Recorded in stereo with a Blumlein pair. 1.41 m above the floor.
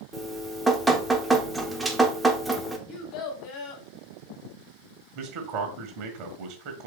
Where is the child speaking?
35° left, 1.2 m.